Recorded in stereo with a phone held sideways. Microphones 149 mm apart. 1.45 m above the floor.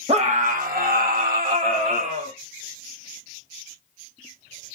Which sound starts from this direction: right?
A scream, at 0.1 s.